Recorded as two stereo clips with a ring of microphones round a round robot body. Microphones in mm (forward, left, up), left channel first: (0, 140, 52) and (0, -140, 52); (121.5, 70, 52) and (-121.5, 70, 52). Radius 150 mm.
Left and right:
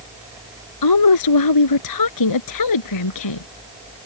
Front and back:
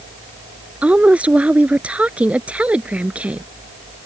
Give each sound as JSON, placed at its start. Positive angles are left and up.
{"t": 0.8, "sound": "a woman speaking", "azimuth_deg": 95}